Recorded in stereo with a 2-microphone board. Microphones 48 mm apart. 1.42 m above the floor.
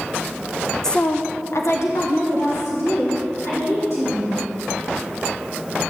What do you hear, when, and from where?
0.8 s a woman speaking: 10° left (ahead or behind), 0.6 m; by 4.4 s 70° left (ahead or behind), 4.5 m